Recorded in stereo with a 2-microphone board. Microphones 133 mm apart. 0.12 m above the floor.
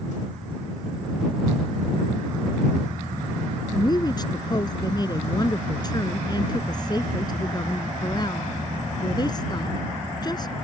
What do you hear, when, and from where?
3.7 s a woman speaking: 30° left (ahead or behind)